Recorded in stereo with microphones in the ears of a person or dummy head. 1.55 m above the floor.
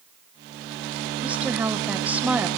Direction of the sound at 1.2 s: 5° right (ahead or behind).